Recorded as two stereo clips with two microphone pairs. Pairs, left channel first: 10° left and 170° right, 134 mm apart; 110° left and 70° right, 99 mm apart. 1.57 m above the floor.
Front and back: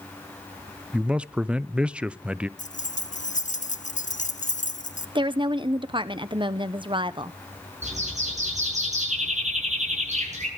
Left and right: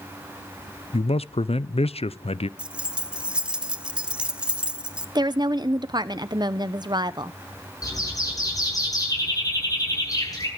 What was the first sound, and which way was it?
A man speaking, 110° left.